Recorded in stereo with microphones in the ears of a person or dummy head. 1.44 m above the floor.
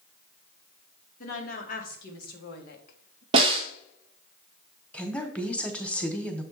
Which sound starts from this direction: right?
A snare drum, at 3.3 s.